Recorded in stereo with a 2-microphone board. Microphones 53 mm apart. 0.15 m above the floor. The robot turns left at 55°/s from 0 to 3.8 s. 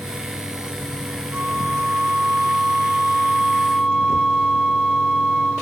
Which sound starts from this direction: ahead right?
A flute, at 1.3 s.